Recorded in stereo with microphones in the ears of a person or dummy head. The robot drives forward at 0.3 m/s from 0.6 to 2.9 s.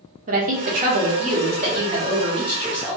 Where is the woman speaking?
40° right (ahead or behind), 0.8 m; by 3.0 s 25° right (ahead or behind), 1.3 m.